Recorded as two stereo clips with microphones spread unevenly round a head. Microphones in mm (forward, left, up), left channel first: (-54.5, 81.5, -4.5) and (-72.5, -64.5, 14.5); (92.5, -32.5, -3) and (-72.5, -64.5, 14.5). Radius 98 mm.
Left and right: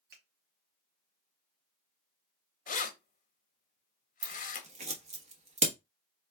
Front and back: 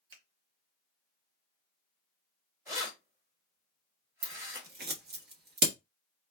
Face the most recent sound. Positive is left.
turn(degrees=-140)